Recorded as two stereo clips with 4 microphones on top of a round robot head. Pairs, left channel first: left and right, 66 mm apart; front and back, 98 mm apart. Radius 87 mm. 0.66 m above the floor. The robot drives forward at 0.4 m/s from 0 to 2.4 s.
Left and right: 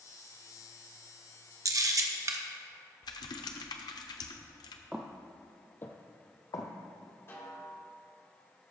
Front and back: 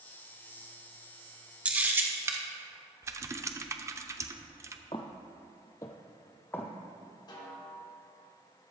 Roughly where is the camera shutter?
Right.